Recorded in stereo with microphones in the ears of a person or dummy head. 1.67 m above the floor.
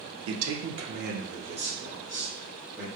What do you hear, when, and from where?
0.3 s a man speaking: 85° right, 0.5 m; by 2.9 s 5° right (ahead or behind), 1.2 m